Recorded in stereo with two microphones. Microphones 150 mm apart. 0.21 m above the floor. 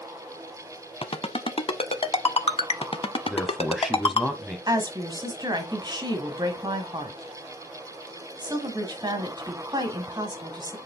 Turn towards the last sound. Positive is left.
turn(degrees=-30)  # may be behind; listen again after turning